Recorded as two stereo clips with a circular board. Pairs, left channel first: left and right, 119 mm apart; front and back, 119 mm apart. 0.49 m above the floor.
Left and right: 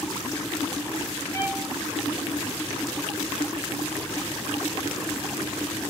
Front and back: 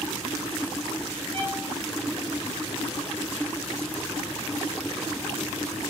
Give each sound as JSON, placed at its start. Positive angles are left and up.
{"t": 1.3, "sound": "a violin", "azimuth_deg": 150, "distance_m": 2.5}